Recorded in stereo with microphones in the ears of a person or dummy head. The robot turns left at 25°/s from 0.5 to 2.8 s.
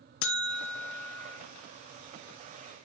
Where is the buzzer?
60° left (ahead or behind), 0.8 m; by 1.4 s 70° left (ahead or behind), 0.8 m.